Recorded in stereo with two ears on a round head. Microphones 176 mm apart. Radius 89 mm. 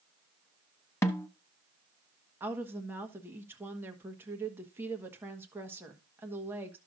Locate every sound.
1.0 s a snare drum: 15° left (ahead or behind), 0.7 m
2.4 s a woman speaking: 10° right (ahead or behind), 1.3 m